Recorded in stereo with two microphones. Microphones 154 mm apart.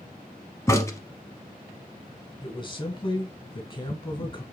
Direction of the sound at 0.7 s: 20° left (ahead or behind).